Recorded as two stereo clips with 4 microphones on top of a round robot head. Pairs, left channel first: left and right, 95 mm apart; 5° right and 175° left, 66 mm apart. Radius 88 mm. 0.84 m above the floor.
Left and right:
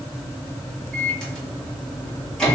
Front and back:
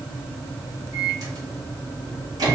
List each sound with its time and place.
0.9 s a microwave: 175° left, 1.5 m